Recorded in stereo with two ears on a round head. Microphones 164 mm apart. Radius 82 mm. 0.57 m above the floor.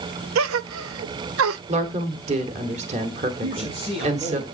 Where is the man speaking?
35° right (ahead or behind), 6 m.